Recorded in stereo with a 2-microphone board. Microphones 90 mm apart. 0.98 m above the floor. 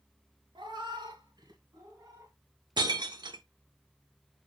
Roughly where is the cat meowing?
Right.